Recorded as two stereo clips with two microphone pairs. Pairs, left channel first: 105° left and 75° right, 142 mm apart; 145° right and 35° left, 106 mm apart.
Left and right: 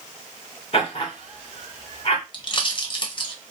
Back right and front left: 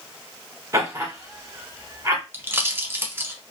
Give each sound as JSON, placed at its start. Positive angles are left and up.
{"t": 0.7, "sound": "laughter", "azimuth_deg": 80, "distance_m": 1.2}
{"t": 2.3, "sound": "a pop", "azimuth_deg": 90, "distance_m": 0.6}